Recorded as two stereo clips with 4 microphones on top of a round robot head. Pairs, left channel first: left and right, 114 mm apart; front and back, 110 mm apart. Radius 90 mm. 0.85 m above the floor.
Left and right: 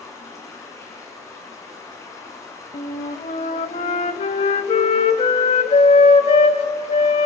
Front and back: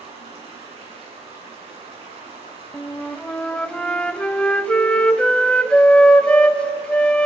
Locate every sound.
0.0 s running water: 150° left, 8.5 m
2.7 s a flute: 75° left, 0.8 m